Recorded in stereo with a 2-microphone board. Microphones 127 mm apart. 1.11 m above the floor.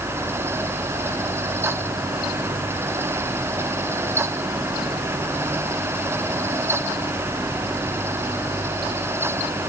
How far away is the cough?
I don't hear a cough.